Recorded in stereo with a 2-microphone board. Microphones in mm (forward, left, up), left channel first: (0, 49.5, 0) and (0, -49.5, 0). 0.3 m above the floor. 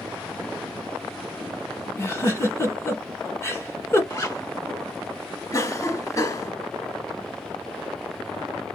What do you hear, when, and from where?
2.0 s a giggle: 30° left (ahead or behind), 1.2 m
4.1 s a zipper: 35° left (ahead or behind), 1.2 m
5.5 s a cough: 35° left (ahead or behind), 1.7 m